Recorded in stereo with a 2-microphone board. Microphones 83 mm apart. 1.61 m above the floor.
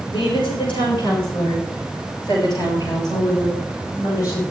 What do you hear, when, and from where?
0.1 s a woman speaking: 75° left (ahead or behind), 7.5 m; by 4.4 s 40° left (ahead or behind), 11 m